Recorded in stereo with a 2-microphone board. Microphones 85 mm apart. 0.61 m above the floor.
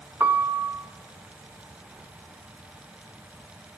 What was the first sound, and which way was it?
A piano, 25° right (ahead or behind).